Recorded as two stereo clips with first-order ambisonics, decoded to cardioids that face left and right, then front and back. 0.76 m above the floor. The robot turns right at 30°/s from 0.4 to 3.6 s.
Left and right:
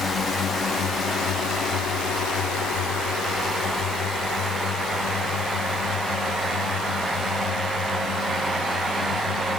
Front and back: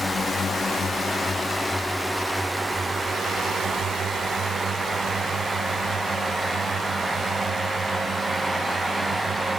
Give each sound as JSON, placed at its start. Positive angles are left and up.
{"t": 0.0, "sound": "a drone", "azimuth_deg": 60}